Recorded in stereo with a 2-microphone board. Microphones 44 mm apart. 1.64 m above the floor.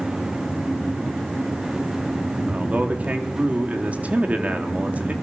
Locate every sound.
2.5 s a man speaking: 35° right (ahead or behind), 3.5 m